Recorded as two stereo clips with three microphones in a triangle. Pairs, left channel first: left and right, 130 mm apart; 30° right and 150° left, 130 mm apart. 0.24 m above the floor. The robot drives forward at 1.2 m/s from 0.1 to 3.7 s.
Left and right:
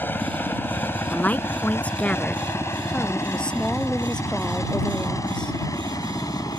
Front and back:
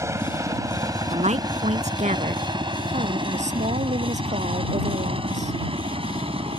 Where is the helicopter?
140° left.